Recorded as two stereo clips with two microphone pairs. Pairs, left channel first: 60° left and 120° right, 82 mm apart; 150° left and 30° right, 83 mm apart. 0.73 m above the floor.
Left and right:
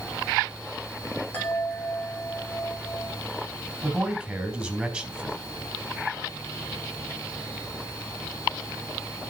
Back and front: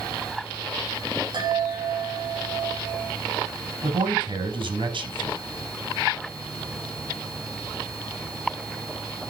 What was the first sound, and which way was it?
A chime, 5° right.